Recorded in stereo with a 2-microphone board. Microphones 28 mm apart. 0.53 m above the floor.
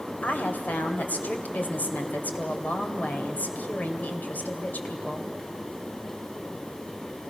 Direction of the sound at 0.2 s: 70° left (ahead or behind).